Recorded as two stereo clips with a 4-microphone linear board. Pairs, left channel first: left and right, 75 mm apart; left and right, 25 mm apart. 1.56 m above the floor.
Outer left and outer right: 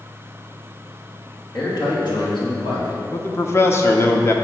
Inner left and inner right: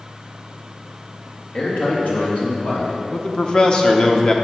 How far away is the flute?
I don't hear a flute.